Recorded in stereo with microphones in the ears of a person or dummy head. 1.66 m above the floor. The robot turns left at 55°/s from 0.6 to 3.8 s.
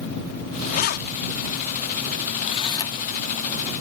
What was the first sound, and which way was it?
Keys jangling, 40° left (ahead or behind).